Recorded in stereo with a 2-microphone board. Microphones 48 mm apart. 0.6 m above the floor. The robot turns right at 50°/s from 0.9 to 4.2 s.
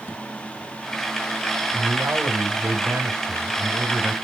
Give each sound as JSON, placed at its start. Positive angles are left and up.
{"t": 1.7, "sound": "a man speaking", "azimuth_deg": -155, "distance_m": 4.0}